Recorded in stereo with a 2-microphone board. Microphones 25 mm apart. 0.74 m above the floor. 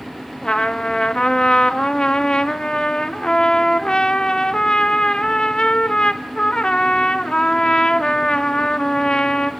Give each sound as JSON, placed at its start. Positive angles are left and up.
{"t": 0.4, "sound": "a trumpet", "side_deg": 35, "distance_m": 1.1}